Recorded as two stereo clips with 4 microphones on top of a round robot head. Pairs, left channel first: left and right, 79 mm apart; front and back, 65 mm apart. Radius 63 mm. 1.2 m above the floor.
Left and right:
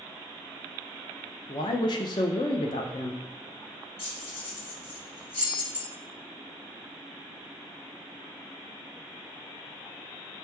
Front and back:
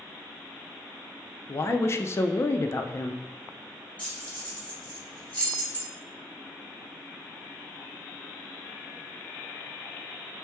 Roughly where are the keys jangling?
Ahead left.